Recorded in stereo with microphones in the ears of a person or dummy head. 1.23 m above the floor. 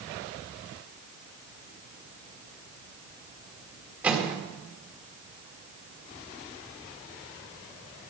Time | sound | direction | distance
4.0 | a microwave | 10° right (ahead or behind) | 2.5 m